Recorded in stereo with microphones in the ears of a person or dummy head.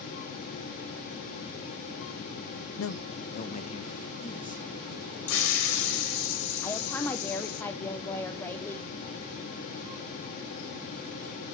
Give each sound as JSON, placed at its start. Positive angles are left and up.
{"t": 2.8, "sound": "a man speaking", "side_deg": 70, "distance_m": 0.8}
{"t": 5.3, "sound": "a hiss", "side_deg": 75, "distance_m": 3.5}
{"t": 6.6, "sound": "a woman speaking", "side_deg": 10, "distance_m": 0.7}